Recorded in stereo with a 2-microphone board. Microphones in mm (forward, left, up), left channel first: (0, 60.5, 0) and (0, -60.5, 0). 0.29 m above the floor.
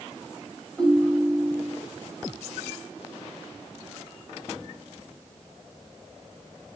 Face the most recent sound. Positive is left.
turn(degrees=0)  # may be behind; listen again after turning